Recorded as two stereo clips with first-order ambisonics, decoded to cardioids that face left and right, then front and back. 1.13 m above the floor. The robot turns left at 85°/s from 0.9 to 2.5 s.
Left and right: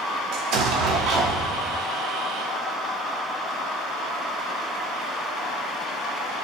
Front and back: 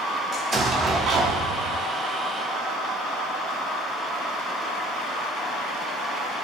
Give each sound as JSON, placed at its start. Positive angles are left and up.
{"t": 0.3, "sound": "an explosion", "azimuth_deg": -115, "distance_m": 0.9}